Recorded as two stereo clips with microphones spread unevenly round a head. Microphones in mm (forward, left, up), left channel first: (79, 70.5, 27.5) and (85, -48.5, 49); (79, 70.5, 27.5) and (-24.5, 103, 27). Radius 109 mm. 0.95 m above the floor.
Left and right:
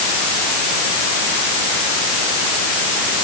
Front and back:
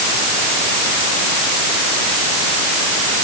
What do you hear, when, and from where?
Only background noise.